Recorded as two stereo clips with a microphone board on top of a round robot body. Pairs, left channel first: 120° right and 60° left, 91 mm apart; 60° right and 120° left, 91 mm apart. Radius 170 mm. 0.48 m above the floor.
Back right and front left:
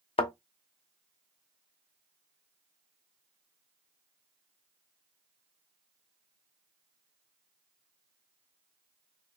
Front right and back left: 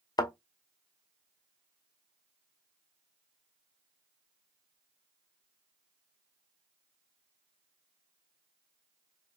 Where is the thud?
110° right, 0.7 m.